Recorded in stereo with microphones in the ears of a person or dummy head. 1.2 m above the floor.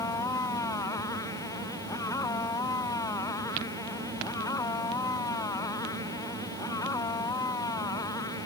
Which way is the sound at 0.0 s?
20° left (ahead or behind).